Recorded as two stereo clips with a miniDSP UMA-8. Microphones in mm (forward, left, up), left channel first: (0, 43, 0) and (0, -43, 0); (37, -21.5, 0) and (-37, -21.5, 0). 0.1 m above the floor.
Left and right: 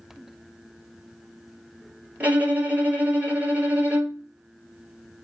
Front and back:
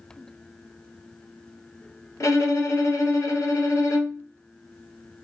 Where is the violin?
25° right, 1.3 m.